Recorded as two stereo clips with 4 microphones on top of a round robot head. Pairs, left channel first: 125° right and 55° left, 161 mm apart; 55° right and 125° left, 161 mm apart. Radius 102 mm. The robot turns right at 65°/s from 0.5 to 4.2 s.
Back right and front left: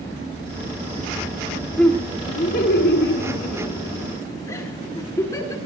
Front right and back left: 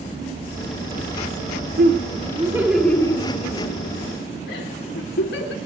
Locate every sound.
1.8 s laughter: 150° left, 3.5 m; by 5.5 s 55° right, 3.5 m